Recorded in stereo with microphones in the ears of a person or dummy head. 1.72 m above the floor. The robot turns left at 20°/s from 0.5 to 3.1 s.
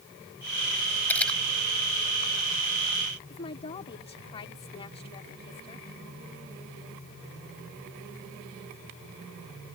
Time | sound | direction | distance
1.1 | a camera shutter | 15° left (ahead or behind) | ?
3.3 | a woman speaking | 30° left (ahead or behind) | ?